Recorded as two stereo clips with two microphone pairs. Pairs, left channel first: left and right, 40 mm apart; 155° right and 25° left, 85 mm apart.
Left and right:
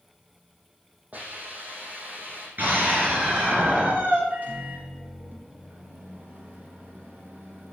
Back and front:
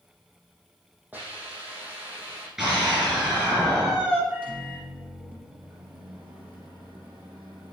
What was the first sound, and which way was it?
A hiss, 45° right.